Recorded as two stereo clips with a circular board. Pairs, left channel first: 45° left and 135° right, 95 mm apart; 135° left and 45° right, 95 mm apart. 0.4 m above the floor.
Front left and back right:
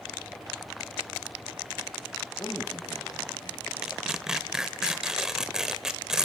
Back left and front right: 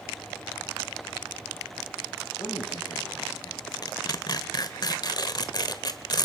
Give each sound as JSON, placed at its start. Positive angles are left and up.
{"t": 2.4, "sound": "a man speaking", "azimuth_deg": 90, "distance_m": 3.5}
{"t": 3.8, "sound": "tearing paper", "azimuth_deg": 145, "distance_m": 1.4}